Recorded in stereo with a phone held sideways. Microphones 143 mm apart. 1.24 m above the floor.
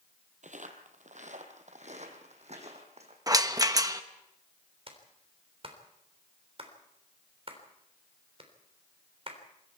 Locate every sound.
0.4 s footsteps: 60° right (ahead or behind), 2.5 m; by 3.2 s 50° right (ahead or behind), 4.5 m
3.3 s a rattle: 25° right (ahead or behind), 1.0 m
4.9 s a clap: 45° right (ahead or behind), 3.5 m